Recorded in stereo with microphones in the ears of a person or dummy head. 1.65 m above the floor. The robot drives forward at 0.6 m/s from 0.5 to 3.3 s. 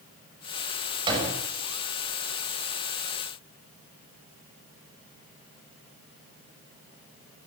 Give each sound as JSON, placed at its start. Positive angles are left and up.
{"t": 1.1, "sound": "a door slam", "side_deg": -30, "distance_m": 7.5}